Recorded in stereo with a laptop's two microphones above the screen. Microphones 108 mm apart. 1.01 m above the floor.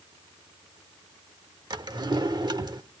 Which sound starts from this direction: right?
A drawer, at 1.7 s.